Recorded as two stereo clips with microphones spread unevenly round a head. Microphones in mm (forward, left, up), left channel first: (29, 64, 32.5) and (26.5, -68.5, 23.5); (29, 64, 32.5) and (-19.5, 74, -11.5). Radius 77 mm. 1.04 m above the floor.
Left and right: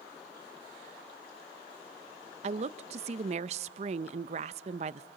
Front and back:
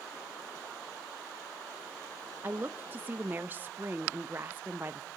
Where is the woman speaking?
135° right, 0.6 m.